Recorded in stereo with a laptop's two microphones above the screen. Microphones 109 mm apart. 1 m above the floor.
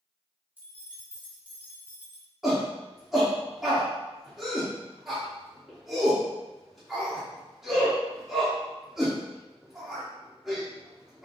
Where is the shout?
5° right (ahead or behind), 0.7 m.